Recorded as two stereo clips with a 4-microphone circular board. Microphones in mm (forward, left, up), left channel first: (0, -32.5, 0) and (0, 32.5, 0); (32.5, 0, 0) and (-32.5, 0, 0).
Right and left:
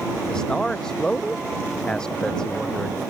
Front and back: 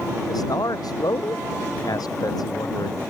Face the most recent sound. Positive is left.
turn(degrees=-10)